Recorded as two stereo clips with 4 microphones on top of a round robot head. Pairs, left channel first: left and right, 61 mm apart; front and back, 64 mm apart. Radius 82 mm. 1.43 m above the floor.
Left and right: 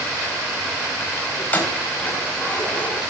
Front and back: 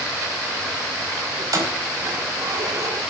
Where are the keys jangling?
150° left, 4 m; by 3.0 s 155° left, 4.5 m.